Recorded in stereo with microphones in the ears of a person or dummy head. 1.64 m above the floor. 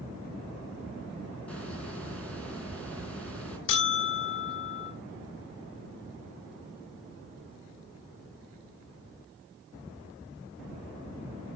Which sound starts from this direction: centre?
A hiss, at 1.5 s.